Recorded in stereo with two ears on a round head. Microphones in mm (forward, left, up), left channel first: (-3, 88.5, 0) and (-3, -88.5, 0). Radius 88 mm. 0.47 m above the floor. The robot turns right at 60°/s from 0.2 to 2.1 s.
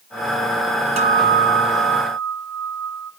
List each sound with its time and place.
1.0 s a guitar: 145° right, 1.8 m; by 3.1 s 80° right, 1.8 m